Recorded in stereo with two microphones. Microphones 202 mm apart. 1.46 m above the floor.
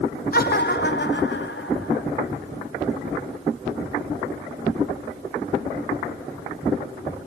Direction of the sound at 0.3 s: 50° left (ahead or behind).